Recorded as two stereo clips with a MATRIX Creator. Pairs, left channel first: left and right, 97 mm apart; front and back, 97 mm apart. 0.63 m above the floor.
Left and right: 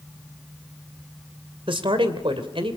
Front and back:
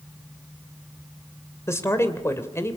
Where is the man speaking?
60° right, 2.5 m.